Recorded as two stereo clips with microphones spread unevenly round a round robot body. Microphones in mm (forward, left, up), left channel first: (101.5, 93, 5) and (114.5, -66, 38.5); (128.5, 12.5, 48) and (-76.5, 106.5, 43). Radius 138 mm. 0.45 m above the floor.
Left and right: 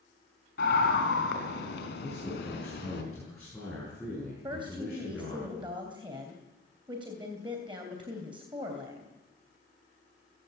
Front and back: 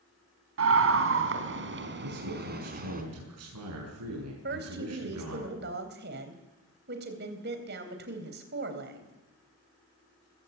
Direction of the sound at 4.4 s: 160° right.